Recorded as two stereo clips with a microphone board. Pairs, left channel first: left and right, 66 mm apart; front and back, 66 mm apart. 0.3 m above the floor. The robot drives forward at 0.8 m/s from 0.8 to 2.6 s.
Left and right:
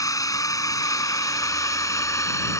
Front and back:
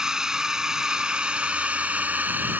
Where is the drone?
100° left; by 2.6 s 120° left.